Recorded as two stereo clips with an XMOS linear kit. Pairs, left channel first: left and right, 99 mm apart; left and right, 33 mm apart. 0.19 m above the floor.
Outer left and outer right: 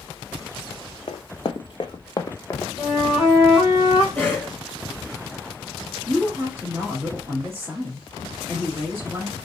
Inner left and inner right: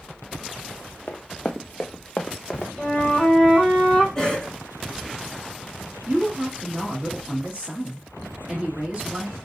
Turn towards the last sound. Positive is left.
turn(degrees=-30)  # may be behind; listen again after turning